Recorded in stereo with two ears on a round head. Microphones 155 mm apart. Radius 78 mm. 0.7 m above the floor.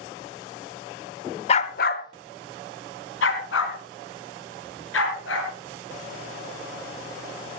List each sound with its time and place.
1.5 s a dog barking: 35° left (ahead or behind), 0.6 m; by 5.5 s 80° left, 4.5 m